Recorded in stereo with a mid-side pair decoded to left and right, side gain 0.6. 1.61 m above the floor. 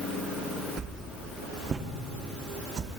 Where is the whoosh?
40° right, 1.3 m.